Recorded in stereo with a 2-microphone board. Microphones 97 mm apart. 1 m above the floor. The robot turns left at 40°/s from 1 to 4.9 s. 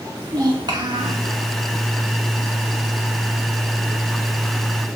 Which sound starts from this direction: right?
A child speaking, at 0.2 s.